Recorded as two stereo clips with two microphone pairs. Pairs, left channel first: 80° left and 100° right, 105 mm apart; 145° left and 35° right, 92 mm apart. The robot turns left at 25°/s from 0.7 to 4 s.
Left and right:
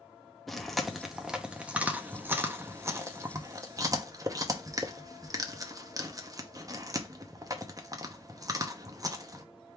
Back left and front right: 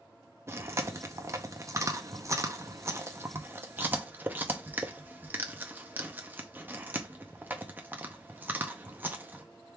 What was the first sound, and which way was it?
Chewing, straight ahead.